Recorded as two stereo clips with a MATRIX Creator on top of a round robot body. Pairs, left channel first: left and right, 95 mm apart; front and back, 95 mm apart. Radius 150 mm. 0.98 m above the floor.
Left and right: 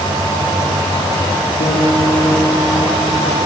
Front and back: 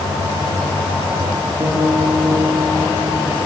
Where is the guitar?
115° left, 6 m.